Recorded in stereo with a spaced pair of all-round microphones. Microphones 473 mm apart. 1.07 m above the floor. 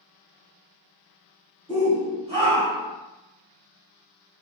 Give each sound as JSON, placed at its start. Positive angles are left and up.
{"t": 1.7, "sound": "a shout", "side_deg": -10, "distance_m": 2.5}